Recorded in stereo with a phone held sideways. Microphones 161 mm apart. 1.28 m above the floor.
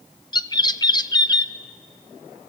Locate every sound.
0.3 s a bird: 25° left (ahead or behind), 0.6 m